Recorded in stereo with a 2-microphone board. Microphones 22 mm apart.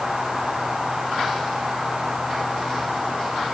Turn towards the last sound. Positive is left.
No sound to turn to.